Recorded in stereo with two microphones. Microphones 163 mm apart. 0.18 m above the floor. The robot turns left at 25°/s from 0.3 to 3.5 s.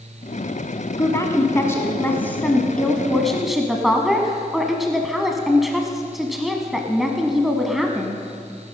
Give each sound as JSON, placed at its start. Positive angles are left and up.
{"t": 1.0, "sound": "a woman speaking", "side_deg": 20, "distance_m": 1.1}